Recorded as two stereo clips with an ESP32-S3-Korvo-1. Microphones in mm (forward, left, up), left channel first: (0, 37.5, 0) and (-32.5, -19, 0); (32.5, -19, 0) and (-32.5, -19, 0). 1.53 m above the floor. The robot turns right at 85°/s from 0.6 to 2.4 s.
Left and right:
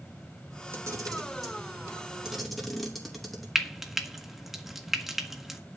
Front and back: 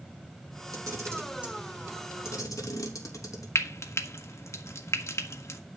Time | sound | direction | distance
0.7 | a camera shutter | 170° right | 3 m
3.5 | frying | 35° right | 1.5 m